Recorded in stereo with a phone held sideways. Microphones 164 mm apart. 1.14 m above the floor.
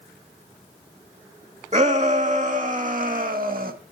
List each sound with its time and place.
1.7 s a shout: 45° right (ahead or behind), 2.5 m; by 3.7 s 70° right (ahead or behind), 1.7 m